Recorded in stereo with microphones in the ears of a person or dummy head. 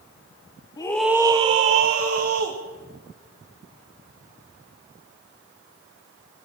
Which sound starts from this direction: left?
A scream, at 0.8 s.